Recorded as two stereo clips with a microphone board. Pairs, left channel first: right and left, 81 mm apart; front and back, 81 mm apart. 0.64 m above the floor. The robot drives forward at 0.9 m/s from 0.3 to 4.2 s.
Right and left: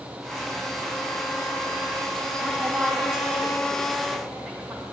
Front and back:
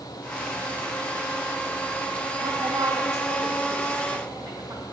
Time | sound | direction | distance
2.4 | a woman speaking | 165° left | 1.6 m